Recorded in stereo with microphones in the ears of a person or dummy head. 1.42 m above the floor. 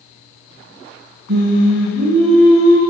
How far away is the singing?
About 1.0 m.